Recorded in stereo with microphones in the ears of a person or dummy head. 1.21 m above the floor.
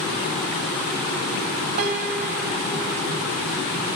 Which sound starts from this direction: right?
A piano, at 1.8 s.